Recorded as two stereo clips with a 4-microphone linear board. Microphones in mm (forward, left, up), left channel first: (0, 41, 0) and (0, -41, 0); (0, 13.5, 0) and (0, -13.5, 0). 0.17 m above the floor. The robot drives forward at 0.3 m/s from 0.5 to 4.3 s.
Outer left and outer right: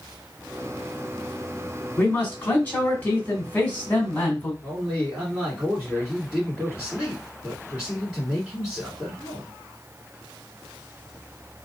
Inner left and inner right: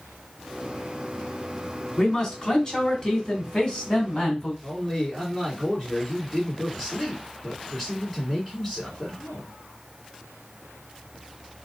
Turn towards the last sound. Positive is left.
turn(degrees=-10)  # may be behind; listen again after turning